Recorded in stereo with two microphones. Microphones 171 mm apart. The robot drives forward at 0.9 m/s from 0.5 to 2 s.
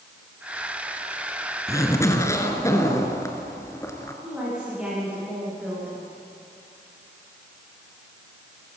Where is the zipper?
20° left (ahead or behind), 1.9 m; by 4.1 s 15° left (ahead or behind), 2 m.